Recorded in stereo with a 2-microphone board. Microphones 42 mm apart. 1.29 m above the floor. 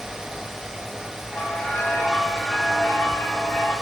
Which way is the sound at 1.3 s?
55° left (ahead or behind).